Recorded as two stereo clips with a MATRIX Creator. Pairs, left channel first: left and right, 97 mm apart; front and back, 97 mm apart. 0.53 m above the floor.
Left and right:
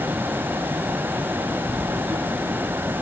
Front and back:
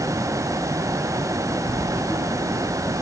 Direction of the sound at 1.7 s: Straight ahead.